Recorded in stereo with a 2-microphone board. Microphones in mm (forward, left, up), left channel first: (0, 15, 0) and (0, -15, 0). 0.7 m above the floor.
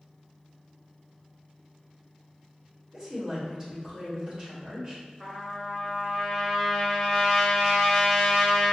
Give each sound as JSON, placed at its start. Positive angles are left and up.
{"t": 2.9, "sound": "a woman speaking", "side_deg": -25, "distance_m": 1.4}
{"t": 5.2, "sound": "a trumpet", "side_deg": -5, "distance_m": 0.7}